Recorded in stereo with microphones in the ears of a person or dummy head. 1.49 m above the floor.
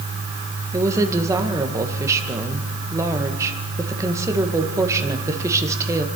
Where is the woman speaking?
15° right (ahead or behind), 1.7 m.